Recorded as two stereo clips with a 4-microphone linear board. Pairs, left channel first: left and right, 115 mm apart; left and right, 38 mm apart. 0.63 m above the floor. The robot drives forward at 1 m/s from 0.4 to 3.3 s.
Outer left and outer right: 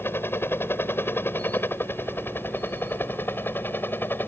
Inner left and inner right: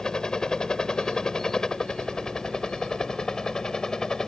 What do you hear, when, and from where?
0.0 s a helicopter: 20° left (ahead or behind); by 4.3 s 15° left (ahead or behind)